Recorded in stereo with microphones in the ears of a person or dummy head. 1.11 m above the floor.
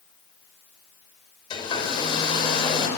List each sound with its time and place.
1.5 s a hair dryer: 20° left (ahead or behind), 5 m